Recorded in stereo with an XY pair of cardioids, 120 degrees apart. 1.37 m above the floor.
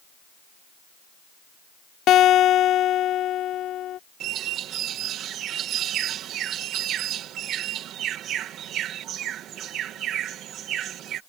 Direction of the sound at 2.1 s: 60° left.